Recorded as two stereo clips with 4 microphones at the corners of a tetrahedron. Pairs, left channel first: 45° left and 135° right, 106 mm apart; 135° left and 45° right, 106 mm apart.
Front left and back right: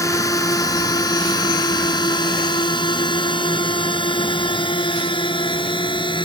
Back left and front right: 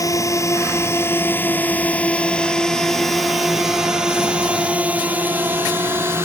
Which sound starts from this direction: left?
A drone, at 0.0 s.